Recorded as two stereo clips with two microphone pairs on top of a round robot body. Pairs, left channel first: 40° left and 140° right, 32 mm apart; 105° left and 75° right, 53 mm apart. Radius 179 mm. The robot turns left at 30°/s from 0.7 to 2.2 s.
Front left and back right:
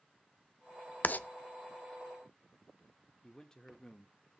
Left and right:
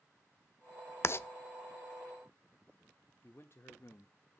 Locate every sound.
1.0 s writing: 70° left, 0.8 m; by 1.3 s 60° left, 0.8 m
3.2 s a man speaking: 110° left, 1.2 m